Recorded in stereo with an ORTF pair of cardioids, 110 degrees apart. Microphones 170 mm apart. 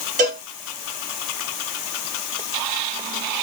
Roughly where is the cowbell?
Ahead right.